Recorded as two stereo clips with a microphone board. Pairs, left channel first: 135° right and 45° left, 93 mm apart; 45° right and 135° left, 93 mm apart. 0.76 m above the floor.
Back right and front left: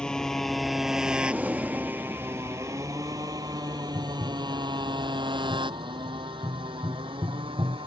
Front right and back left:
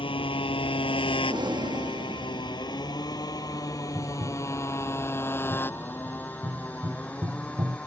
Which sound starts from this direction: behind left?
Breathing, at 1.3 s.